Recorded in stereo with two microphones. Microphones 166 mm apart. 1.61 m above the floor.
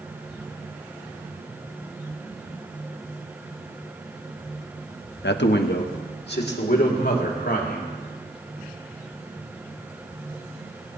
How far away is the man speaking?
About 0.6 m.